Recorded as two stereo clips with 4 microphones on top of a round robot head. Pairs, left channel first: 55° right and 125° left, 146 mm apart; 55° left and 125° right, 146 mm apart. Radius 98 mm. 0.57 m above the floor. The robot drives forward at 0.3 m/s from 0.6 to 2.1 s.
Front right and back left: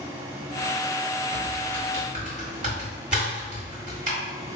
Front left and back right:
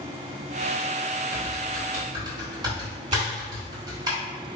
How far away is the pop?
About 1.0 m.